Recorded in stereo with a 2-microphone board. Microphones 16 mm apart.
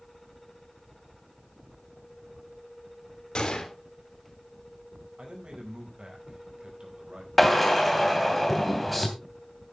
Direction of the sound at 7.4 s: 5° right (ahead or behind).